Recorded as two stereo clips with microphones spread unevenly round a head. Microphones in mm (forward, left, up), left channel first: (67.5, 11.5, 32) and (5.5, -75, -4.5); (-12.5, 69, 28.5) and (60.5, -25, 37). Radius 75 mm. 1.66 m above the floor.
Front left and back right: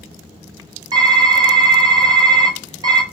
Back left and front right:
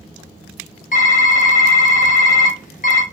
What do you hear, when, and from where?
0.9 s typing on a keyboard: 160° left, 0.5 m